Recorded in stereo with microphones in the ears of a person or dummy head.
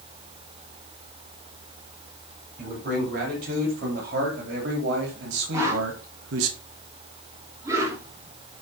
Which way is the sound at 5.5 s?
20° right (ahead or behind).